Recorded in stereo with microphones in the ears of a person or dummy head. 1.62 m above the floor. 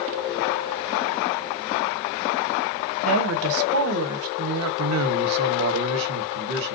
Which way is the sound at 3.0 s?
75° right (ahead or behind).